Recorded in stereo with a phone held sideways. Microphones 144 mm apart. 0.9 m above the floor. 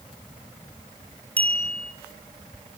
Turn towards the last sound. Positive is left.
turn(degrees=10)  # may be behind; listen again after turning